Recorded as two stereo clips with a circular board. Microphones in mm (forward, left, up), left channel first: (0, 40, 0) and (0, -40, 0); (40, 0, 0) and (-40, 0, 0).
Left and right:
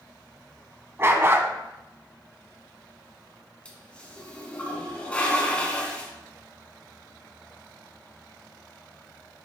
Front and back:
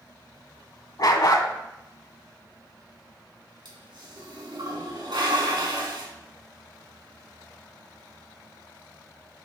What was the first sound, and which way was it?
A dog barking, 30° right.